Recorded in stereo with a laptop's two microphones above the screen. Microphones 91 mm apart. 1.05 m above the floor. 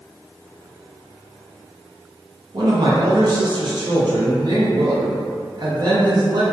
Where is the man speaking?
50° right (ahead or behind), 0.6 m.